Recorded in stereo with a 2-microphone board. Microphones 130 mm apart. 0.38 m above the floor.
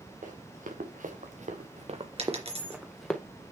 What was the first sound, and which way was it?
Running footsteps, 85° right.